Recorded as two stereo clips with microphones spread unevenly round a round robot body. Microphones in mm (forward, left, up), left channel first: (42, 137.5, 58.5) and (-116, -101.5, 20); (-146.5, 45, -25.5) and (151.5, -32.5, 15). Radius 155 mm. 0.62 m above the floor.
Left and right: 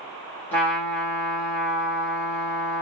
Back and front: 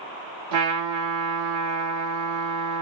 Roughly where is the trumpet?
Ahead right.